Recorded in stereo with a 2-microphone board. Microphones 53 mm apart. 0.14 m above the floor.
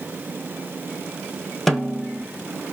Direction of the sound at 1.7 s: Centre (ahead or behind).